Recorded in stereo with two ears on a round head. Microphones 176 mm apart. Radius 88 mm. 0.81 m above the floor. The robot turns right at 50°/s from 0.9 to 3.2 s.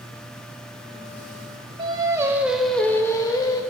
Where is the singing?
40° right, 0.6 m; by 3.6 s 30° left, 0.6 m.